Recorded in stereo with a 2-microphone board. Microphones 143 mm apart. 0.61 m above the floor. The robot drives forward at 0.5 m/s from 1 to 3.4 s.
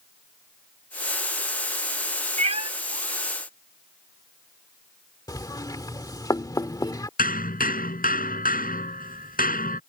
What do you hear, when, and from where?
2.4 s a cat meowing: 50° right (ahead or behind); by 2.7 s 40° right (ahead or behind)
5.3 s knocking: 25° left (ahead or behind)
7.2 s hammering: 85° left